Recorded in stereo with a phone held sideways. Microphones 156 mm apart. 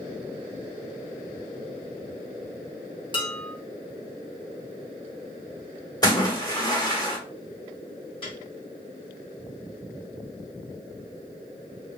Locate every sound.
3.1 s dishes clattering: 30° left (ahead or behind), 0.9 m
6.0 s a splash: 25° left (ahead or behind), 1.2 m
8.2 s a piano: 35° left (ahead or behind), 1.8 m